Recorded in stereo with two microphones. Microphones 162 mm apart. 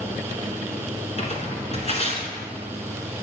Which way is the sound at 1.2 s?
40° left (ahead or behind).